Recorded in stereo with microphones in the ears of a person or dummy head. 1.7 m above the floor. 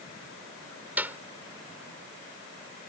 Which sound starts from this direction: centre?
A clap, at 1.0 s.